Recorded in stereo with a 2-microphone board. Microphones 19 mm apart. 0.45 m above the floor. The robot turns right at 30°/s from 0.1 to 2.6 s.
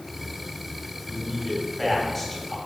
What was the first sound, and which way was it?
A man speaking, 10° right.